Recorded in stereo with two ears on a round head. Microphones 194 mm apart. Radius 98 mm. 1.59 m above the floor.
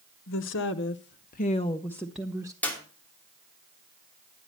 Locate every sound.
0.3 s a woman speaking: 60° left (ahead or behind), 1.1 m; by 2.5 s 15° right (ahead or behind), 0.9 m
2.6 s a clap: 5° left (ahead or behind), 3 m